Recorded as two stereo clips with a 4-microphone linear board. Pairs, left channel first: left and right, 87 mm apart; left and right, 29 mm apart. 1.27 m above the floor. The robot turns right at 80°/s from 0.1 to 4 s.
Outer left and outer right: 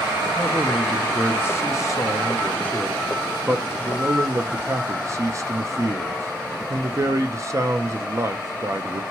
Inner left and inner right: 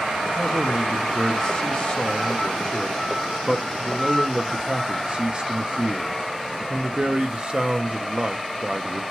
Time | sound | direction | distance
0.4 | a man speaking | 35° right | 0.5 m